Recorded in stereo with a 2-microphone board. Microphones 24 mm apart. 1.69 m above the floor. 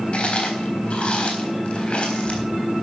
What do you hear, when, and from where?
0.1 s chewing: 45° left (ahead or behind), 4 m